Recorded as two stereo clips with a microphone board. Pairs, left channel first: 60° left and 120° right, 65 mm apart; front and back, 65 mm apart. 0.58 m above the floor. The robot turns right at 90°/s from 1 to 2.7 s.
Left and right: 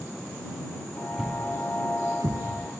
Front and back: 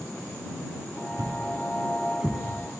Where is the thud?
160° left; by 2.7 s 65° right.